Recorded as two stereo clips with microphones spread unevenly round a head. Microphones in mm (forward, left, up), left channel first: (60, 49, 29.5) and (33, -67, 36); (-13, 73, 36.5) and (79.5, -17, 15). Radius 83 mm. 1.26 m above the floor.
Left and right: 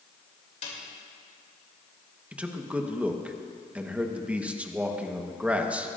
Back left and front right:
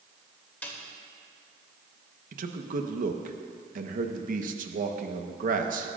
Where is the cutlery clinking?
I don't hear cutlery clinking.